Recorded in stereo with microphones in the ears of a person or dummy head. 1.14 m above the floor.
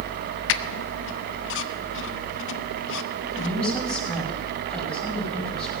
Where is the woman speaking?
5° left (ahead or behind), 5.5 m.